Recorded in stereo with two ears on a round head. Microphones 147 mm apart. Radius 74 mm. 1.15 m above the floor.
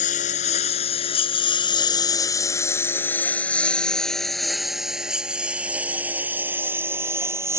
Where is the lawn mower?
50° left (ahead or behind); by 7.6 s 15° right (ahead or behind).